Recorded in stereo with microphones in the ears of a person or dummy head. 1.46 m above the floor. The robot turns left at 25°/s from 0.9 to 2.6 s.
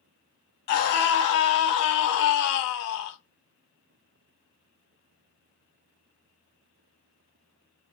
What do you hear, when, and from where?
0.7 s a scream: 125° left, 1.1 m; by 3.2 s 85° left, 1.1 m